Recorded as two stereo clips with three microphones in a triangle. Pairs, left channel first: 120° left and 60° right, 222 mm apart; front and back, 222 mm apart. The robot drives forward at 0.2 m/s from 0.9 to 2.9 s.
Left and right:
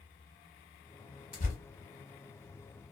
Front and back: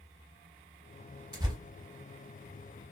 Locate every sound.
1.3 s tearing paper: 120° left, 0.8 m; by 1.6 s 125° left, 0.8 m